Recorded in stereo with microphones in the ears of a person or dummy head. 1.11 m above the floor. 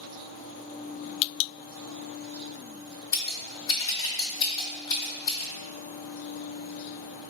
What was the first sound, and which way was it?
Scissors, 15° left (ahead or behind).